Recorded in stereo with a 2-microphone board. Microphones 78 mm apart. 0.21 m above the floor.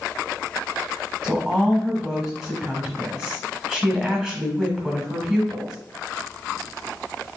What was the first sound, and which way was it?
A woman speaking, 5° left (ahead or behind).